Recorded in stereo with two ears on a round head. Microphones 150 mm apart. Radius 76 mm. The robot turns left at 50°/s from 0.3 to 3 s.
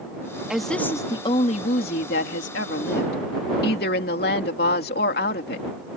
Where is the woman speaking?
175° right; by 5.7 s 60° left.